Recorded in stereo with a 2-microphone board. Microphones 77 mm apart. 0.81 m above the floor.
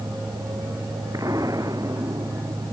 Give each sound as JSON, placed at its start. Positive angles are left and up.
{"t": 1.1, "sound": "an explosion", "side_deg": -50}